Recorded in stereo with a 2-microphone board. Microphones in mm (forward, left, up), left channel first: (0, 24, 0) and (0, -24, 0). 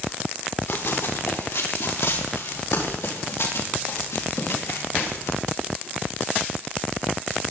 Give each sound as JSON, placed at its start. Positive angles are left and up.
{"t": 0.7, "sound": "running footsteps", "side_deg": 70, "distance_m": 3.0}